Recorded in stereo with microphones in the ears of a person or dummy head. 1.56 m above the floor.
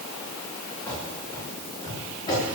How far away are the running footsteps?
About 9 m.